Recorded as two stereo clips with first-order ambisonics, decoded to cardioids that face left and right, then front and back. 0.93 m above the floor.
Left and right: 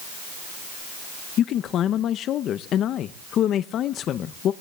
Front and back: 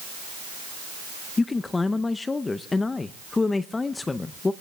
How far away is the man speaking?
About 0.6 m.